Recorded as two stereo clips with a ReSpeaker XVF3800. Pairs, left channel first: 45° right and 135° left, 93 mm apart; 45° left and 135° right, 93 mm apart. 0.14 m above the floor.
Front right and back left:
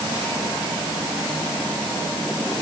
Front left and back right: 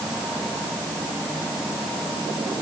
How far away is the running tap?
I don't hear a running tap.